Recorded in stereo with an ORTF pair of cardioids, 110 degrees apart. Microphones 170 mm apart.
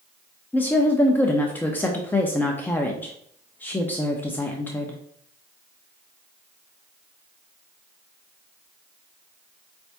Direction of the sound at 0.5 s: 10° left.